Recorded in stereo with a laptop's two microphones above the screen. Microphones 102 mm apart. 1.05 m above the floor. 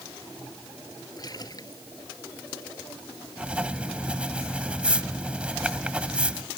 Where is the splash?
40° left (ahead or behind).